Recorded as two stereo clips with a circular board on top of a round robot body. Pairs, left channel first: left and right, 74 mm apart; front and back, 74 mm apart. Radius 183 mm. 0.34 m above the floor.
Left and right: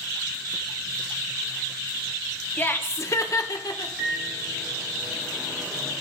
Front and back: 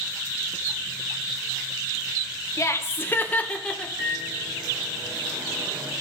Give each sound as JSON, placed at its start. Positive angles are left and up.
{"t": 2.6, "sound": "laughter", "azimuth_deg": 30, "distance_m": 1.2}
{"t": 4.0, "sound": "a microwave", "azimuth_deg": -165, "distance_m": 5.5}